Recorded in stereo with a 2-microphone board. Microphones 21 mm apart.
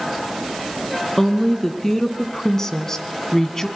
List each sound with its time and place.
1.2 s a woman speaking: 20° left (ahead or behind), 2.5 m; by 3.7 s 25° left (ahead or behind), 1.6 m